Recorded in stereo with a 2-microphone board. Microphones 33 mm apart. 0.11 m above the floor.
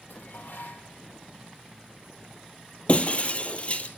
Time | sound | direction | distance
0.1 | dishes clattering | 70° left (ahead or behind) | 3 m
2.9 | breaking glass | 40° left (ahead or behind) | 1.4 m